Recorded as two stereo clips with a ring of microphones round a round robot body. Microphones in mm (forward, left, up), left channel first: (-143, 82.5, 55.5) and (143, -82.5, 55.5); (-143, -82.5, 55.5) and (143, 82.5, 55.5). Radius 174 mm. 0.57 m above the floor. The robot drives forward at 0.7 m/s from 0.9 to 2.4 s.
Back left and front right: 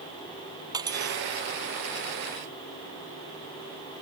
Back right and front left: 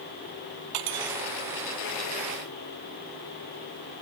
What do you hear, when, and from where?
0.7 s cutlery clinking: 50° left